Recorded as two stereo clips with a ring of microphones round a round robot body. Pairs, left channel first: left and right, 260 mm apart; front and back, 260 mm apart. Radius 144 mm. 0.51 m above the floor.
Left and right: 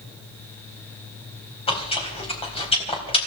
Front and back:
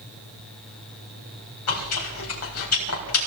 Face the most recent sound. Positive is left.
turn(degrees=20)